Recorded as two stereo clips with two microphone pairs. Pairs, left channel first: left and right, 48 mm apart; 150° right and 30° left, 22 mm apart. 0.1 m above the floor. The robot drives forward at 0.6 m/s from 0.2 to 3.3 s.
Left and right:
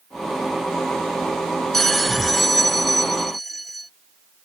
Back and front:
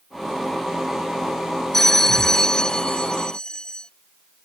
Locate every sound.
1.7 s a bell: 170° left; by 3.9 s 175° left